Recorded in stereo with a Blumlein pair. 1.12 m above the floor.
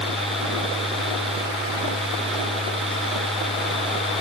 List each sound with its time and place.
0.0 s a fan: 5° right